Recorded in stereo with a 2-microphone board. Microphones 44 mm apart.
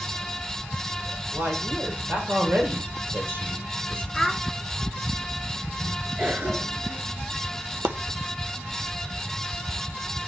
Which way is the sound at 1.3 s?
60° right (ahead or behind).